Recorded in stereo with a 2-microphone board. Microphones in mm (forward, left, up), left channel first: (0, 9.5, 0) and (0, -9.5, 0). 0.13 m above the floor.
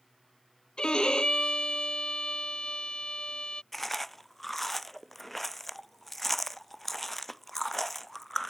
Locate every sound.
0.8 s a violin: 70° left (ahead or behind)
3.7 s chewing: 10° left (ahead or behind)